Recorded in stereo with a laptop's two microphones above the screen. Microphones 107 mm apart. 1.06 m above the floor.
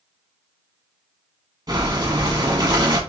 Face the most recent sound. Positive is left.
turn(degrees=-40)  # may be behind; listen again after turning